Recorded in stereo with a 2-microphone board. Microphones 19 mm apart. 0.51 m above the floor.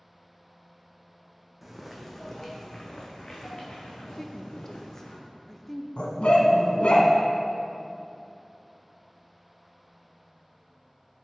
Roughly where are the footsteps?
Centre.